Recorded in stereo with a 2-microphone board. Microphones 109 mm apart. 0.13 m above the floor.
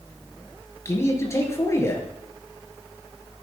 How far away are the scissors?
No scissors in this recording.